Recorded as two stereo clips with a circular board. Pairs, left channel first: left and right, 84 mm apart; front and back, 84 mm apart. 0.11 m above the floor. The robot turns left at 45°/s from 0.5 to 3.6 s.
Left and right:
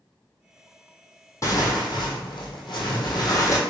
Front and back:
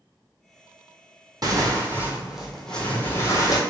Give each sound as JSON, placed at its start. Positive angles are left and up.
{"t": 1.4, "sound": "tearing paper", "azimuth_deg": 140, "distance_m": 1.1}